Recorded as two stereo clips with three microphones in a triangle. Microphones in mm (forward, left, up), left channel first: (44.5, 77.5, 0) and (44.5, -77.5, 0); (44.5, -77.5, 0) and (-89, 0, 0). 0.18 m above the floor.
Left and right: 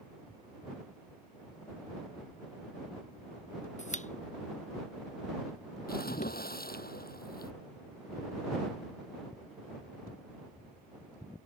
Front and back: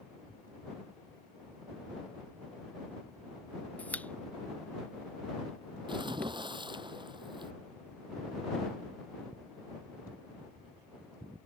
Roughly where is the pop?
Ahead left.